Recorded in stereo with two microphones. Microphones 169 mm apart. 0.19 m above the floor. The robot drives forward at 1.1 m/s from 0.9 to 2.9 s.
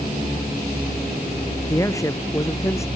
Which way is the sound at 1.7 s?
20° left (ahead or behind).